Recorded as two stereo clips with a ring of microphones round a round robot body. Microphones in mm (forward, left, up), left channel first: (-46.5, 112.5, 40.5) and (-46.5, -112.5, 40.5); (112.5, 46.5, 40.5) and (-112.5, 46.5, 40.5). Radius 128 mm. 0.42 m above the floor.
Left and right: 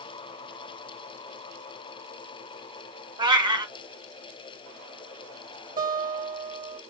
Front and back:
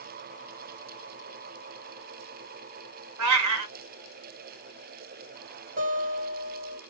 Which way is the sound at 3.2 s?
160° right.